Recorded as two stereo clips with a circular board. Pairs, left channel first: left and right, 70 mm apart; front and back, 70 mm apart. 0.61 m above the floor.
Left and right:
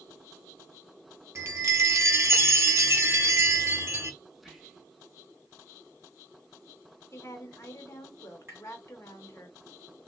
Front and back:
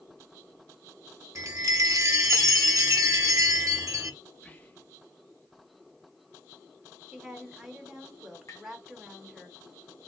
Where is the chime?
140° right, 0.6 m.